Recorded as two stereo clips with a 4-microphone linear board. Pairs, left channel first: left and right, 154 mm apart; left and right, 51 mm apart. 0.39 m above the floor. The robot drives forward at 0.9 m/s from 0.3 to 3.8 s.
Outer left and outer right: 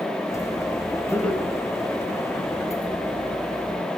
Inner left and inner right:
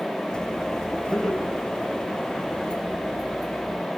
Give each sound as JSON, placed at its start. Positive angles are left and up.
{"t": 1.1, "sound": "laughter", "side_deg": 10, "distance_m": 5.0}